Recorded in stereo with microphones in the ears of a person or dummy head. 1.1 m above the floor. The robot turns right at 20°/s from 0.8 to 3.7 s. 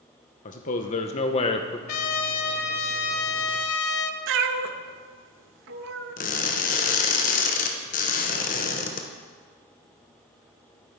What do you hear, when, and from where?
0.5 s a man speaking: 35° left (ahead or behind), 0.6 m; by 1.8 s 20° left (ahead or behind), 0.6 m
1.9 s a trumpet: 45° left, 0.7 m; by 4.2 s 85° left, 0.7 m
4.3 s a cat meowing: 65° right (ahead or behind), 0.6 m
6.2 s crushing: 35° left (ahead or behind), 0.9 m